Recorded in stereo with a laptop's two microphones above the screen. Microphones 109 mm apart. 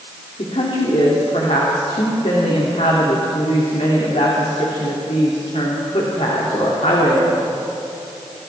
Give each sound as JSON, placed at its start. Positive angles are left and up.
{"t": 0.4, "sound": "a woman speaking", "side_deg": 85, "distance_m": 2.5}